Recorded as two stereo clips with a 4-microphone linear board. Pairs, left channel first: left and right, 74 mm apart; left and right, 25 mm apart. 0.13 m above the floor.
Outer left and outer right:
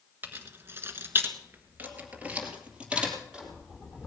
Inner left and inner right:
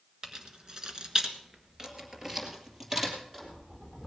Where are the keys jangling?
30° right (ahead or behind), 1.4 m; by 4.1 s 10° right (ahead or behind), 4 m.